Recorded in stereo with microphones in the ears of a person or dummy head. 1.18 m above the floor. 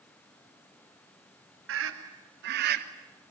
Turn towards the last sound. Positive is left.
turn(degrees=-55)  # may be behind; listen again after turning